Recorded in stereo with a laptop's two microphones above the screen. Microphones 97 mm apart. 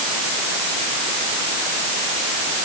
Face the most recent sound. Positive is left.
No sound to turn to.